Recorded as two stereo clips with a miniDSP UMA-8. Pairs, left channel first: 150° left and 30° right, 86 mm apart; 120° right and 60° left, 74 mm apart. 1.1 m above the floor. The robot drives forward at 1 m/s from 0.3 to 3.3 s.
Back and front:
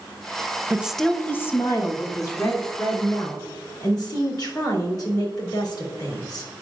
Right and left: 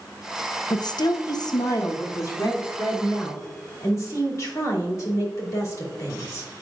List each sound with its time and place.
0.7 s a woman speaking: 95° right, 0.6 m; by 6.5 s 170° right, 2.5 m